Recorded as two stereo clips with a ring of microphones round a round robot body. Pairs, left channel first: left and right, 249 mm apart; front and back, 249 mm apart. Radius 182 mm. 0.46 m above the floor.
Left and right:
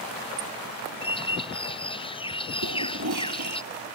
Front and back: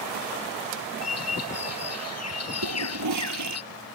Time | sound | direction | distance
1.0 | a bird | 20° left | ?
2.6 | a toilet flushing | 140° right | ?